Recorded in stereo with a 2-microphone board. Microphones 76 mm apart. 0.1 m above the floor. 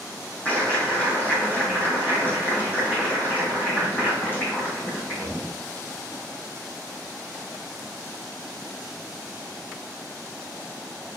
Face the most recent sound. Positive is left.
turn(degrees=25)  # may be behind; listen again after turning